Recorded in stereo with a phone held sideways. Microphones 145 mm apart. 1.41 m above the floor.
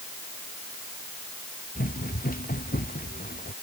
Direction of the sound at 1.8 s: 85° left.